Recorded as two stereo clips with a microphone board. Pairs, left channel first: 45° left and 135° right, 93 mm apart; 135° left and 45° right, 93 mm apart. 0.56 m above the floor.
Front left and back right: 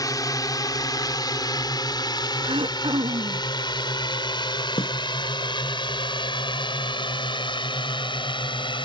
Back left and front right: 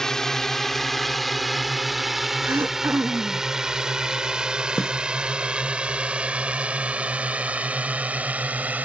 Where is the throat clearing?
110° right.